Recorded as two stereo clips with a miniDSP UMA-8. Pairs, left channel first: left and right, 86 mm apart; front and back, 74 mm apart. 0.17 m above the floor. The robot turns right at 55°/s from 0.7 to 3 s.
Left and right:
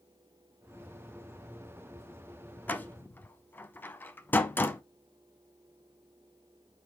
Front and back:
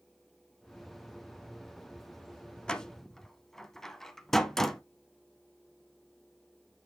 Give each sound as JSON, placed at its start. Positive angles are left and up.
{"t": 2.7, "sound": "a door slam", "azimuth_deg": 60, "distance_m": 0.7}